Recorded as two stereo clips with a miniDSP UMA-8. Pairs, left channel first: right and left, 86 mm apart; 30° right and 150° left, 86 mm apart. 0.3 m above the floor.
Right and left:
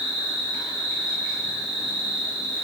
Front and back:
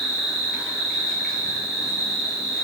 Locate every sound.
0.0 s an insect: 60° left, 1.4 m